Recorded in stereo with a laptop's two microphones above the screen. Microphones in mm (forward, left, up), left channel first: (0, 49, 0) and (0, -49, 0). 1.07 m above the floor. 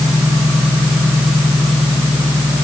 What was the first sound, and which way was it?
Only background noise.